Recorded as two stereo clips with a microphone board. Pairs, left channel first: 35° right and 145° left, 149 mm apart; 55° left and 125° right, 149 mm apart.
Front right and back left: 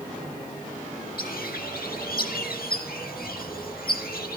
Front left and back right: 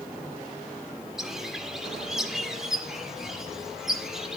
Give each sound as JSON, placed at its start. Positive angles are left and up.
{"t": 1.2, "sound": "a bird", "azimuth_deg": -40, "distance_m": 1.1}